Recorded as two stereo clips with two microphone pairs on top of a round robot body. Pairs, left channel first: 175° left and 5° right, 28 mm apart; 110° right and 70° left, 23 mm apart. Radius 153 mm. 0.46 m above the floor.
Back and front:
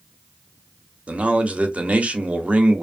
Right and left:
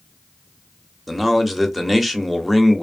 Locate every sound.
1.1 s a man speaking: 15° right, 1.0 m